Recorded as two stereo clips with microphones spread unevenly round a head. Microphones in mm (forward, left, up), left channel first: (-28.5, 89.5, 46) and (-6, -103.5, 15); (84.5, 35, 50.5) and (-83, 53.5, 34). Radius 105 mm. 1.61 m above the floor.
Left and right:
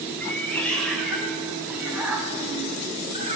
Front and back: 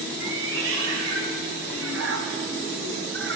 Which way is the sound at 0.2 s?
175° left.